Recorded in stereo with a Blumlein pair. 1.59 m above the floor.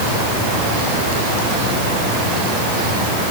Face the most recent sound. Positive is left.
No sound to turn to.